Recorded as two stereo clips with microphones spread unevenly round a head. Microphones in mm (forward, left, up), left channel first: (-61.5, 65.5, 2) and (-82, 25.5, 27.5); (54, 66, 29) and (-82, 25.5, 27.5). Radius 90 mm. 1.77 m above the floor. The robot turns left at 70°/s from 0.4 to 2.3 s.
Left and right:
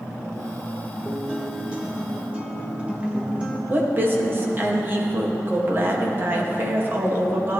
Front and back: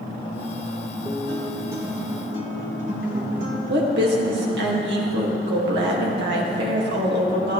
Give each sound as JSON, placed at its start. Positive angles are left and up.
{"t": 1.1, "sound": "a guitar", "azimuth_deg": -45, "distance_m": 1.2}
{"t": 3.7, "sound": "a woman speaking", "azimuth_deg": -165, "distance_m": 1.9}